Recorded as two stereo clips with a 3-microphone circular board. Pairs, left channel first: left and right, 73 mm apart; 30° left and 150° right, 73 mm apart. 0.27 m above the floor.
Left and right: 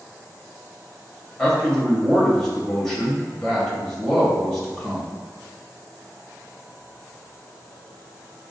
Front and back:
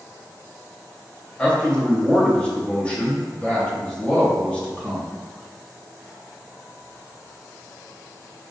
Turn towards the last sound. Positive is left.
turn(degrees=25)